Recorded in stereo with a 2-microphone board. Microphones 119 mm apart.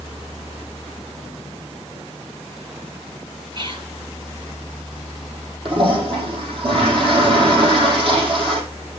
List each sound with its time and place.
3.5 s whispering: 45° right (ahead or behind), 2.5 m
5.7 s a toilet flushing: 50° right (ahead or behind), 6 m